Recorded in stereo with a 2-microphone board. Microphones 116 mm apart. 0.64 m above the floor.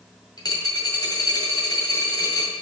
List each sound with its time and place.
0.4 s a dropped coin: 40° left (ahead or behind), 1.7 m